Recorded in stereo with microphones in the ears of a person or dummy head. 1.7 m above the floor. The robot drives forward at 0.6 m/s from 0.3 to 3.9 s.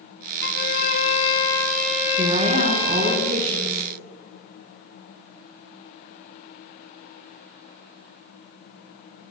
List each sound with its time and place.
0.4 s a violin: 65° left (ahead or behind), 0.8 m; by 3.2 s 25° left (ahead or behind), 1.8 m
2.2 s a woman speaking: 55° right (ahead or behind), 3 m; by 3.8 s 40° right (ahead or behind), 3.5 m